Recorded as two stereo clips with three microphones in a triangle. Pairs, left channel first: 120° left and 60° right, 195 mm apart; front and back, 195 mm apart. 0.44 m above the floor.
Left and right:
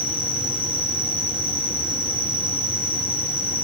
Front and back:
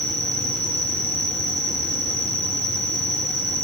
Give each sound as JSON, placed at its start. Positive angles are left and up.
{"t": 0.0, "sound": "an insect", "azimuth_deg": -120, "distance_m": 3.0}